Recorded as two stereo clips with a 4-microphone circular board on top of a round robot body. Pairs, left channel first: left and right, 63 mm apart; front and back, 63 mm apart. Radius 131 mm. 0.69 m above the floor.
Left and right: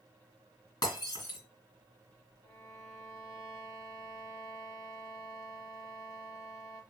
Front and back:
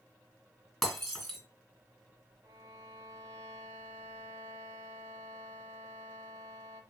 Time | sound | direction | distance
0.8 | breaking glass | 85° left | 3 m
2.4 | a violin | 140° left | 0.8 m